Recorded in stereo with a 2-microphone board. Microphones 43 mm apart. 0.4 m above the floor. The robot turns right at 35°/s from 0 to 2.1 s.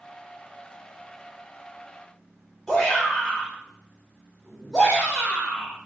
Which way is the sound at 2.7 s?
Centre (ahead or behind).